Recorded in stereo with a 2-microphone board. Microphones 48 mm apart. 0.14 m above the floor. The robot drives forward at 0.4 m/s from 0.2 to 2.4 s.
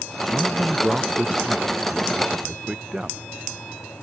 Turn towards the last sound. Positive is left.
turn(degrees=-15)  # may be behind; listen again after turning